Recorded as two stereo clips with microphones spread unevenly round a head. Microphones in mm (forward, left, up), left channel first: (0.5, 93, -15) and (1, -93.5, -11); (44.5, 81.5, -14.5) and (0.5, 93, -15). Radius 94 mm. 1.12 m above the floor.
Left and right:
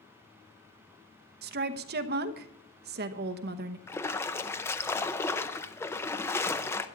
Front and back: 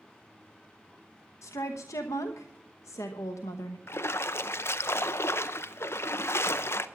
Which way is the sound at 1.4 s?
50° right.